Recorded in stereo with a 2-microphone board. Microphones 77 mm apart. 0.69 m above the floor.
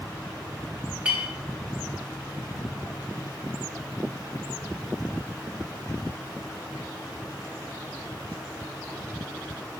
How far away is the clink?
About 1.7 m.